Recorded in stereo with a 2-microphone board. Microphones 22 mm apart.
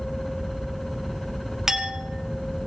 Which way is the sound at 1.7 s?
25° right (ahead or behind).